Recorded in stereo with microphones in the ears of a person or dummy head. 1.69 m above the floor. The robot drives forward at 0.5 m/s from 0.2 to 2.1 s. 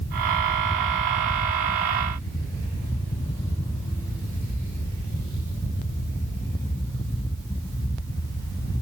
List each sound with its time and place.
Only background noise.